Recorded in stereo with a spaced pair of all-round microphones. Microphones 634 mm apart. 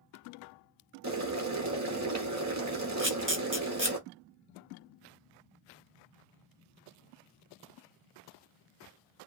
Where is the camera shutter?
20° right (ahead or behind), 1.0 m.